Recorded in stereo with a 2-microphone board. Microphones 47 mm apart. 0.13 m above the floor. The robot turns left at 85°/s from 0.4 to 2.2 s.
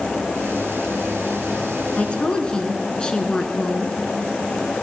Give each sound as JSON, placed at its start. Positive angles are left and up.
{"t": 2.0, "sound": "a woman speaking", "side_deg": 30, "distance_m": 1.4}